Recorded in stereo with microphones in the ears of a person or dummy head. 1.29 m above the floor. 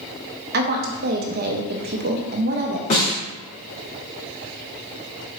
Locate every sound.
0.5 s a woman speaking: 50° right (ahead or behind), 0.8 m
2.9 s a snare drum: 45° left (ahead or behind), 1.8 m